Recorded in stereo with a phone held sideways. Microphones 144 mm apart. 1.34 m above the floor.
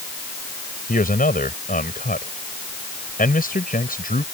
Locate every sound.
0.9 s a man speaking: 80° left